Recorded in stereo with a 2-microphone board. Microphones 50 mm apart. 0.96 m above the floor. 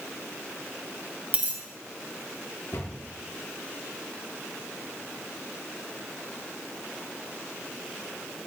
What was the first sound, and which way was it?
A dropped coin, 30° right (ahead or behind).